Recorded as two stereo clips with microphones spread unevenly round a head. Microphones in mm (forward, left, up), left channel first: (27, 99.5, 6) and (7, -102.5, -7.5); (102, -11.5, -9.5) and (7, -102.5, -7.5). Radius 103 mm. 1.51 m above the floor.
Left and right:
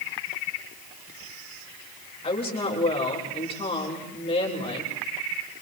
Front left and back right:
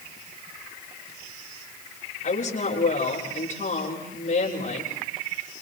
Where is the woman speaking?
20° left, 7.5 m.